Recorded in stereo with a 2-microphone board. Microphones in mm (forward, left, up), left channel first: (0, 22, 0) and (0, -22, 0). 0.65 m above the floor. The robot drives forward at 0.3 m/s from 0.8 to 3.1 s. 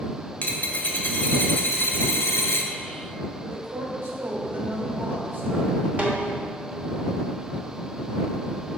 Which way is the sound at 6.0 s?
35° right (ahead or behind).